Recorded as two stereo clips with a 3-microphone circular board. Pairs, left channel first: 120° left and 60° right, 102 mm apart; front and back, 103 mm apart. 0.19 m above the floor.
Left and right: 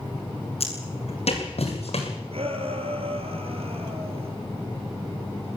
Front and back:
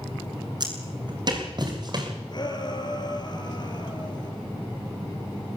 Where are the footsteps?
135° left, 9 m.